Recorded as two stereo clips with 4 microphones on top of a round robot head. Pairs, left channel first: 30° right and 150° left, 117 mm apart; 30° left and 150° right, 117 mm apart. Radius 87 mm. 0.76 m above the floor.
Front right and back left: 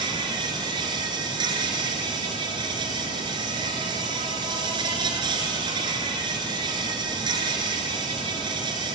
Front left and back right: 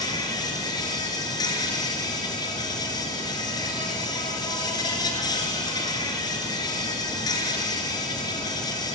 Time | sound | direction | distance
0.0 | an insect | 90° left | 3 m